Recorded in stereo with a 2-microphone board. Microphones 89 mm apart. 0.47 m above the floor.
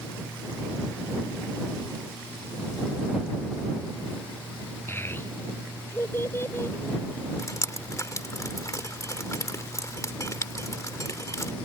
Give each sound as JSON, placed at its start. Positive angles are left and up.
{"t": 4.9, "sound": "a child speaking", "side_deg": 25}
{"t": 7.4, "sound": "dripping", "side_deg": 35}